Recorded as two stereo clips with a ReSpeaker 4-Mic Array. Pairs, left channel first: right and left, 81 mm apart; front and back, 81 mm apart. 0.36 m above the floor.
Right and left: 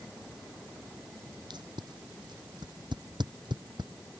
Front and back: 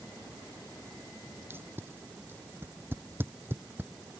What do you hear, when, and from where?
1.5 s tape being pulled: 115° left